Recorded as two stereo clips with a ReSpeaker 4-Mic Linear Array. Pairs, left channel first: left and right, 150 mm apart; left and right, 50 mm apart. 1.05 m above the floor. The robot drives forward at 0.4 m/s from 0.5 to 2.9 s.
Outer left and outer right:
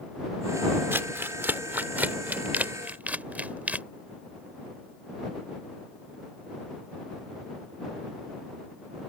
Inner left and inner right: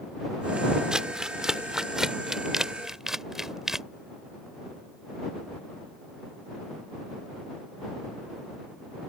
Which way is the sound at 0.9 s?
15° right (ahead or behind).